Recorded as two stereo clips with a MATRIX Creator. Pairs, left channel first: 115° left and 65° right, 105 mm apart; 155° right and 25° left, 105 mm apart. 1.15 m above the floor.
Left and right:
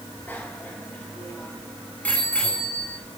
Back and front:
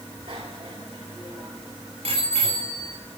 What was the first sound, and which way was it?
A bicycle bell, 45° left.